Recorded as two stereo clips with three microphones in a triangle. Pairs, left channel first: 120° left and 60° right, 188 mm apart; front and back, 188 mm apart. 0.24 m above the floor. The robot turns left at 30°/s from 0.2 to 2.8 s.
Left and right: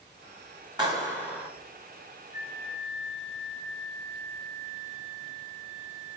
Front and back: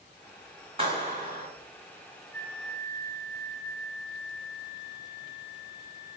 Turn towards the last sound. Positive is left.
turn(degrees=145)